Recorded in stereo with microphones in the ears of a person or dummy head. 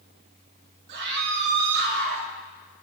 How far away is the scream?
About 3.5 m.